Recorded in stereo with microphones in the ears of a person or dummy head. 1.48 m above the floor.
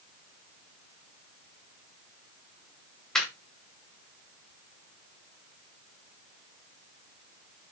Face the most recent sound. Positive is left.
turn(degrees=0)  # may be behind; listen again after turning